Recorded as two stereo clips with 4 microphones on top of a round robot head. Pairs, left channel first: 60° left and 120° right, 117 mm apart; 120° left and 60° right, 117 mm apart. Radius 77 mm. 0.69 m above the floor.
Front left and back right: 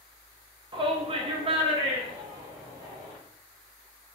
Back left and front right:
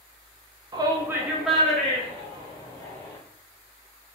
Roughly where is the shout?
Right.